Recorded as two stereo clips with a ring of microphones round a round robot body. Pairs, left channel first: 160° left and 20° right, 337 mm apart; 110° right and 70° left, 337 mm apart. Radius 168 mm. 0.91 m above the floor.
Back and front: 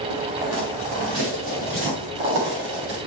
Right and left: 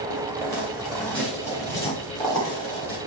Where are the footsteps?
15° right, 5 m; by 3.0 s 35° right, 6.5 m.